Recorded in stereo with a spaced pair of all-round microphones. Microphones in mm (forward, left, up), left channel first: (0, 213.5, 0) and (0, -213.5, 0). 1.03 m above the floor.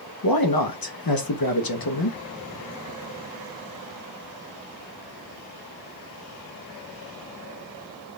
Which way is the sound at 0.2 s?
55° left (ahead or behind).